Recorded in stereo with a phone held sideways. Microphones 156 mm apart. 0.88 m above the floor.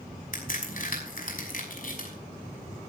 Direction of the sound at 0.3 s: 60° left (ahead or behind).